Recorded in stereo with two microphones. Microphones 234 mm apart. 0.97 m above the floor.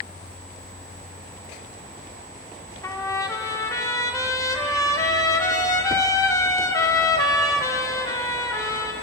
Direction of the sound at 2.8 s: 15° left (ahead or behind).